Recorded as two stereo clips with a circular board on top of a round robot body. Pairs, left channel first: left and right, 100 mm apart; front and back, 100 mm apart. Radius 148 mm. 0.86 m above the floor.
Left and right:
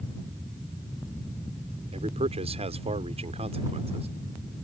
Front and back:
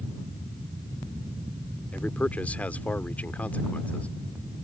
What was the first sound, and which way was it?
A man speaking, 75° right.